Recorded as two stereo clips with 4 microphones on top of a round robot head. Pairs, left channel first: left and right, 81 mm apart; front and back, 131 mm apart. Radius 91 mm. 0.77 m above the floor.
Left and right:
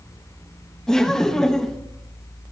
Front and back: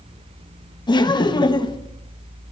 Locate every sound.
0.9 s laughter: 10° left, 1.0 m